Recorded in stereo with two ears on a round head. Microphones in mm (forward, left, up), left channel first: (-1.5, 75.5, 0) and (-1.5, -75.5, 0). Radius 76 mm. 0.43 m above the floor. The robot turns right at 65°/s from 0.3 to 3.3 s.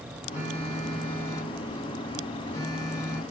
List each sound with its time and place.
0.3 s a phone buzzing: 15° right (ahead or behind), 1.5 m; by 3.2 s 10° left (ahead or behind), 1.5 m